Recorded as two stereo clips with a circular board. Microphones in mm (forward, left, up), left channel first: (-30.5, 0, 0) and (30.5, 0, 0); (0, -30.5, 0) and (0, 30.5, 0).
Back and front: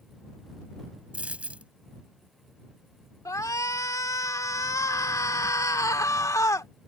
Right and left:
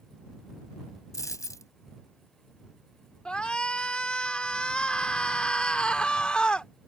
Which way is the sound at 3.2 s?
160° right.